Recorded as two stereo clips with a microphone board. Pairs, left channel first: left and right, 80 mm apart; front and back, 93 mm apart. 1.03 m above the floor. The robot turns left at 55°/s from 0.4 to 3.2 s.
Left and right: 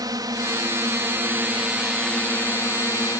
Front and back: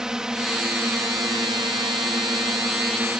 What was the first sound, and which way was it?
A drone, 100° right.